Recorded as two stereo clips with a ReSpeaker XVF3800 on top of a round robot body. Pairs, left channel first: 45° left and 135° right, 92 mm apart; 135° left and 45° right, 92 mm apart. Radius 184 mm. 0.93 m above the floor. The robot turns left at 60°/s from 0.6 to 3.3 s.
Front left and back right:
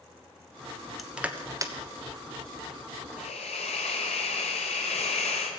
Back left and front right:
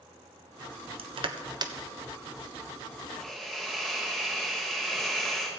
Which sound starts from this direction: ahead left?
A hiss, at 3.2 s.